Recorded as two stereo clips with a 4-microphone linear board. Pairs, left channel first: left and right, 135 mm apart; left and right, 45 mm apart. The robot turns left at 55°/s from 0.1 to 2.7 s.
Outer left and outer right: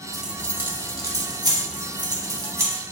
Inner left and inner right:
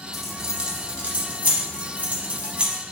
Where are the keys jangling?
Centre (ahead or behind), 0.8 m; by 2.8 s 20° right (ahead or behind), 0.8 m.